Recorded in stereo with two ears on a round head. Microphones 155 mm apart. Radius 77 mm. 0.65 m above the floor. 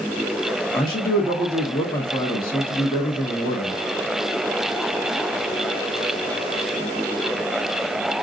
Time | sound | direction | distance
0.7 | a man speaking | 25° left (ahead or behind) | 0.8 m